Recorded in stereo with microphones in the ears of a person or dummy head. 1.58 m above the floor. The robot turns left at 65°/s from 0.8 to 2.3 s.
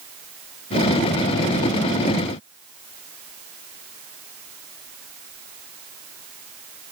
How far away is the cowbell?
I don't hear a cowbell.